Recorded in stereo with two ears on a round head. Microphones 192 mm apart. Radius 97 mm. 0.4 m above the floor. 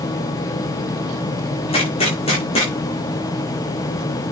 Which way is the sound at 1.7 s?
25° left (ahead or behind).